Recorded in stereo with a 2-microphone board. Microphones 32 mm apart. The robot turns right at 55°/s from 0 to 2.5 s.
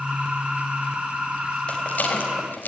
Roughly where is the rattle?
Left.